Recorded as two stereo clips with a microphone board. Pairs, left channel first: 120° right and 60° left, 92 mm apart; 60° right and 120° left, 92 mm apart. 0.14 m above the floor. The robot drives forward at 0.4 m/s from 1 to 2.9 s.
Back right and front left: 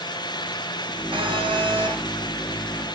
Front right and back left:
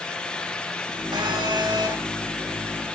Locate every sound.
1.1 s a phone buzzing: 85° left, 7.5 m